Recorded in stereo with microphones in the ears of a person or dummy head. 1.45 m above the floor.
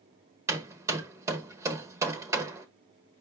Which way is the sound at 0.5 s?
15° right (ahead or behind).